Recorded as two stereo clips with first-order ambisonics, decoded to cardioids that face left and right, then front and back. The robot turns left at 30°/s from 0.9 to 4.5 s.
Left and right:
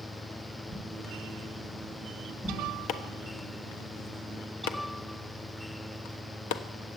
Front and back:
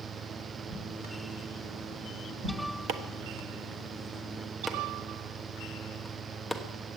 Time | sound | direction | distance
0.7 | a whoosh | 140° right | 3.5 m
2.9 | chopping | 135° left | 1.1 m